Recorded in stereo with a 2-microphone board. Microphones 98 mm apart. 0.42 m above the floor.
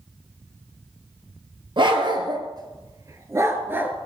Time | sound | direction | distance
1.8 | a dog barking | 55° right (ahead or behind) | 2 m